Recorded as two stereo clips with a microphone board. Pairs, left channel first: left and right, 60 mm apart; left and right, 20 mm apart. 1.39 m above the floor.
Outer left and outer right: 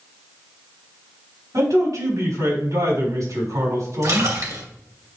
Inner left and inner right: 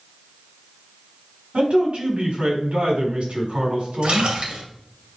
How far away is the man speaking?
About 5 m.